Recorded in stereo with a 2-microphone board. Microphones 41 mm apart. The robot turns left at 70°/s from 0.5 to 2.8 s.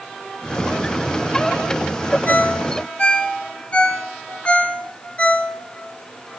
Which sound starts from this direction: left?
A ringtone, at 2.3 s.